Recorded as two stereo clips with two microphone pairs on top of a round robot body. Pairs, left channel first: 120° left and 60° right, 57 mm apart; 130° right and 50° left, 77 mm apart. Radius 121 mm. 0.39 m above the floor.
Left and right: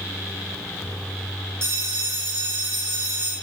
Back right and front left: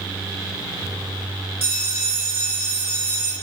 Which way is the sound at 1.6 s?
10° right.